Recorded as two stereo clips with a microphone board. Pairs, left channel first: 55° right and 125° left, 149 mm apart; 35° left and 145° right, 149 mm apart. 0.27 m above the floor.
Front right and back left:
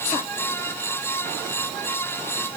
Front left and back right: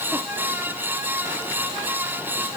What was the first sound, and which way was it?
Only background noise.